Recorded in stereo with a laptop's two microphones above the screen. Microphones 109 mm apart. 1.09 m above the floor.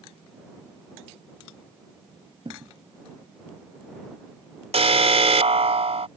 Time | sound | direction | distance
2.5 | a thud | 50° right (ahead or behind) | ?
4.7 | an alarm | 70° right (ahead or behind) | ?